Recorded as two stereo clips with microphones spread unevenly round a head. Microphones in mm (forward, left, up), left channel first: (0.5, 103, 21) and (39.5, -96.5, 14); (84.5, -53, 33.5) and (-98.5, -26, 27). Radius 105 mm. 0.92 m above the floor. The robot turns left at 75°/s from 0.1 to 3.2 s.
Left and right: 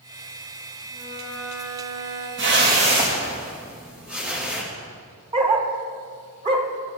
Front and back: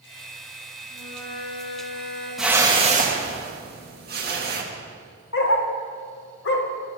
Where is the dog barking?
20° right, 1.1 m.